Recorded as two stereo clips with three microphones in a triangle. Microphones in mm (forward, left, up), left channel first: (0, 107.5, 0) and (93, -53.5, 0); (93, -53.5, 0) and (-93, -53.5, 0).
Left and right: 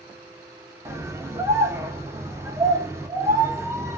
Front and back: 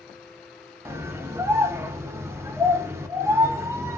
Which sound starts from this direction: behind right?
A scream, at 0.8 s.